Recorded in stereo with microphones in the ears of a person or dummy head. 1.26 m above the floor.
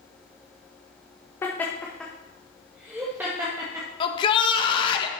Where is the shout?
30° left (ahead or behind), 1.7 m.